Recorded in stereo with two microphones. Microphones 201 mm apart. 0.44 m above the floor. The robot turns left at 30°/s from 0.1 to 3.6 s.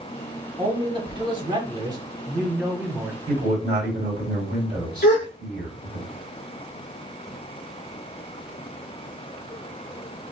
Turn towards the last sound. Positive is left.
turn(degrees=50)  # may be behind; listen again after turning